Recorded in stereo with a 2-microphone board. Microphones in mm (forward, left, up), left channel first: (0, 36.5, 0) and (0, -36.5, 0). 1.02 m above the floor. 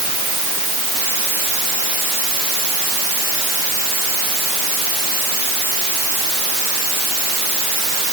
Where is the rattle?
I don't hear a rattle.